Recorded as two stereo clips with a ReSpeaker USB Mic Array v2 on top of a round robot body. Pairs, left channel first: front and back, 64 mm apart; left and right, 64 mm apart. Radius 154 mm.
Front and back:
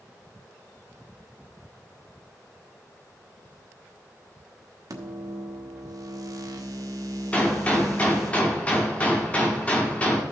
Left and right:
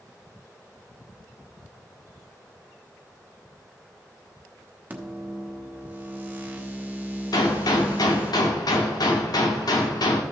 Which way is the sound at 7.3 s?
70° left.